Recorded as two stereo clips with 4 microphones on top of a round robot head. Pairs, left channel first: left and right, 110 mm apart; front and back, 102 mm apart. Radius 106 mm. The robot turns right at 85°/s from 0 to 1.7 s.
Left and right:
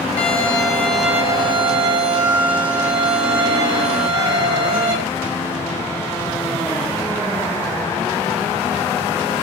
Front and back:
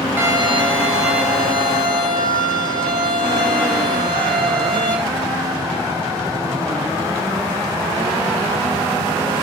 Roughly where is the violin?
Left.